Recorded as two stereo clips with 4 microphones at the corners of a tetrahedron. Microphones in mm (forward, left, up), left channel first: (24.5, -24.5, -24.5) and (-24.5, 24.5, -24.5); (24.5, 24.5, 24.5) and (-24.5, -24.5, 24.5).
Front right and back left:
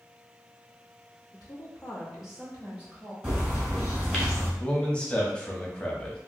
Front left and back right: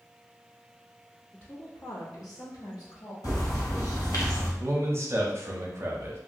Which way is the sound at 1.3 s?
35° right.